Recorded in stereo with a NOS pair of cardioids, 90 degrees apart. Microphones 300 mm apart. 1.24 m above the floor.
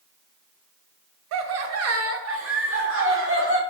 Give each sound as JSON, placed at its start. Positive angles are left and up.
{"t": 1.3, "sound": "laughter", "azimuth_deg": -70, "distance_m": 0.5}